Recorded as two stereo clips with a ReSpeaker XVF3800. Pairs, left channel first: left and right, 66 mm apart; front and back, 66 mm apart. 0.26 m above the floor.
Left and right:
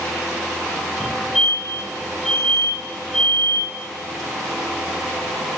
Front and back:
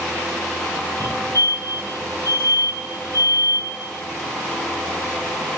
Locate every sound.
1.0 s a fire alarm: 170° right, 9.5 m